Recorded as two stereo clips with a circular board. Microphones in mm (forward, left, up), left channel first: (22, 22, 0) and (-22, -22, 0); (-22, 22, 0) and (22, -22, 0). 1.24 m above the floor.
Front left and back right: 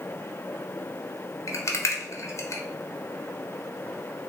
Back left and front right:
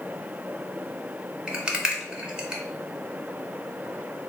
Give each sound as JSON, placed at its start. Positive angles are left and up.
{"t": 1.5, "sound": "a rattle", "azimuth_deg": 30, "distance_m": 0.6}